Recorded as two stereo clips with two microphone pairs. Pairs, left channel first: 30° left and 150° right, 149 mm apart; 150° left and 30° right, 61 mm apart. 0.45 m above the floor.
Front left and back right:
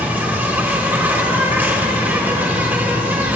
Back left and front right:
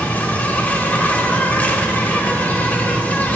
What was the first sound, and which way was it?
An insect, 150° left.